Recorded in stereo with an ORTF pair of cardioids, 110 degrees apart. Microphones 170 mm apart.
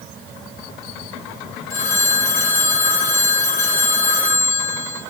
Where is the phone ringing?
55° left, 2.5 m.